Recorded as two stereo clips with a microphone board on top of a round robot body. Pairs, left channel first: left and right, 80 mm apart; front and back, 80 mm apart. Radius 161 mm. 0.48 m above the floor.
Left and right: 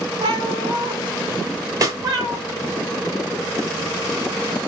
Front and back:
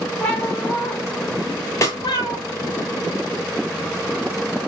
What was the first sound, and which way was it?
A cat meowing, 75° right.